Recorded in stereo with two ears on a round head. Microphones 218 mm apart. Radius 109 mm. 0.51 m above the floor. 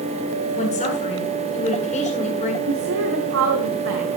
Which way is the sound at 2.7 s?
60° right (ahead or behind).